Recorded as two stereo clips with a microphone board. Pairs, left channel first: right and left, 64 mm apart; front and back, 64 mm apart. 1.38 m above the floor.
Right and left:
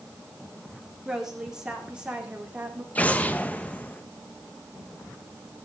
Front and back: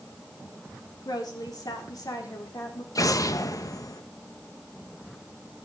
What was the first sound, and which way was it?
A woman speaking, 10° left.